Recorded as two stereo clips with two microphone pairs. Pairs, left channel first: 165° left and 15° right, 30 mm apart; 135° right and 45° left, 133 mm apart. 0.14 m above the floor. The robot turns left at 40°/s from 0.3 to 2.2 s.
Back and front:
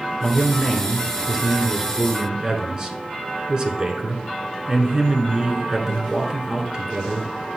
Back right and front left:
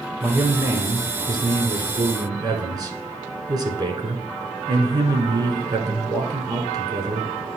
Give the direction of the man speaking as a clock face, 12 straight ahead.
9 o'clock.